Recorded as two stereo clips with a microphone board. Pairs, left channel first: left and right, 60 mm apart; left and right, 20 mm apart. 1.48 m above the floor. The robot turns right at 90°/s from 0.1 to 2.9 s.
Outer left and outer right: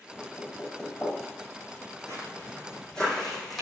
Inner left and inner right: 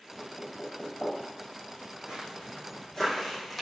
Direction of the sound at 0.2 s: 70° left (ahead or behind).